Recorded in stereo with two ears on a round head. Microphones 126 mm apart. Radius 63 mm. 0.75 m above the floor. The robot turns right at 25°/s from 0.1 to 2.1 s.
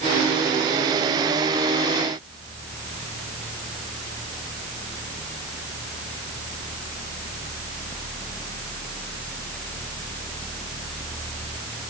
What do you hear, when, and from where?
Only background noise.